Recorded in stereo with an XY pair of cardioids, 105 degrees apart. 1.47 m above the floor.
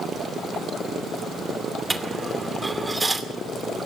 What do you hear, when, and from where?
1.9 s a dropped coin: 15° right, 2.5 m